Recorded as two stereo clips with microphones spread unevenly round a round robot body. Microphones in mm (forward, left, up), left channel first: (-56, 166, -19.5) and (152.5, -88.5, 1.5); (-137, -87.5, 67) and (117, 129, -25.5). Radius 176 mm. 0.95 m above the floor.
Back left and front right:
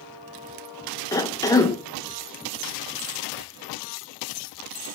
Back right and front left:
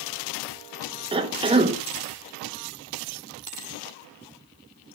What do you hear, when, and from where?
1.1 s a cough: 65° left, 0.9 m